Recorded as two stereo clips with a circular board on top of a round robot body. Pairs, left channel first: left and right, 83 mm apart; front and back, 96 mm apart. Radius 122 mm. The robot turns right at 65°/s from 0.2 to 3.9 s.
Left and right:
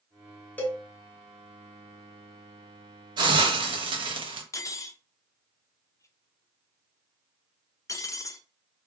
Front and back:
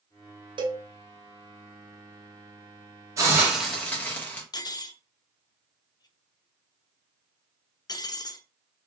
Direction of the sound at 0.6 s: 160° left.